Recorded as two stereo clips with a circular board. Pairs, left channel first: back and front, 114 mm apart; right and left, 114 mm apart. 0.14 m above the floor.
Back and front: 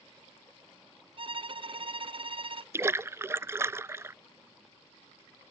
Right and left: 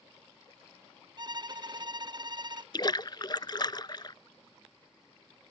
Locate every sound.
1.2 s a violin: 40° left
2.7 s a splash: 60° right